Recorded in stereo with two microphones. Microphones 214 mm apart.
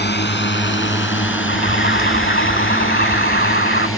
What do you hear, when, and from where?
0.0 s a drone: 55° left (ahead or behind); by 4.0 s 75° left (ahead or behind)
1.5 s an alarm: 55° left (ahead or behind)